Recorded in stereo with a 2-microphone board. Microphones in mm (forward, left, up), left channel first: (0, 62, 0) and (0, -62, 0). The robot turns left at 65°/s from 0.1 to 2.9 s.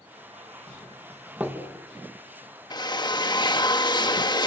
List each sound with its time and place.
0.7 s a doorbell: 35° left (ahead or behind), 3 m; by 1.6 s 25° right (ahead or behind), 3 m
2.7 s a drill: 35° left (ahead or behind), 1.2 m